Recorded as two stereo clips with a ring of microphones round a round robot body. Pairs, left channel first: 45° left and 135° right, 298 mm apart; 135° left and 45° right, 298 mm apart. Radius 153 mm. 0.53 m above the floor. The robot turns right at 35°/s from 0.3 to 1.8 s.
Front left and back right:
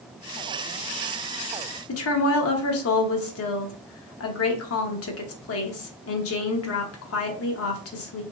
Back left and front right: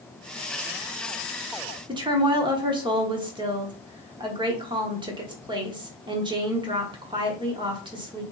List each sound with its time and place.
1.9 s a woman speaking: 25° left, 1.0 m